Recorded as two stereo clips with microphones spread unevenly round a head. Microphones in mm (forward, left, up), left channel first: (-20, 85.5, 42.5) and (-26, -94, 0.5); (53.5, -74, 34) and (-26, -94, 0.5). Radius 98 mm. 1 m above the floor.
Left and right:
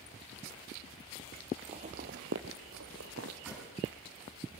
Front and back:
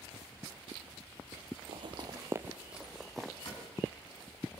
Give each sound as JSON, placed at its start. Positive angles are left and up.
{"t": 1.7, "sound": "footsteps", "azimuth_deg": -160, "distance_m": 1.3}
{"t": 3.5, "sound": "a cupboard door", "azimuth_deg": -5, "distance_m": 6.0}